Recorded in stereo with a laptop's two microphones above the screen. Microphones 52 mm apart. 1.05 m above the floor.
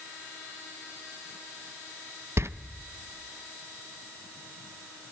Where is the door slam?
55° right (ahead or behind), 0.7 m.